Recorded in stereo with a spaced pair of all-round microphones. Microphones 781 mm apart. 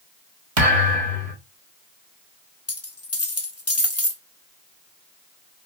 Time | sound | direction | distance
0.6 | a thud | 45° right (ahead or behind) | 1.4 m
2.7 | a dropped coin | 20° left (ahead or behind) | 1.0 m